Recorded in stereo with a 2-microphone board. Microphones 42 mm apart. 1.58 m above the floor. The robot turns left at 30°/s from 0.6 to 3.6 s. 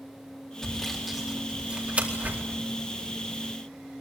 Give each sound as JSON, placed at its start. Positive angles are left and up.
{"t": 0.6, "sound": "sawing", "side_deg": 5, "distance_m": 4.0}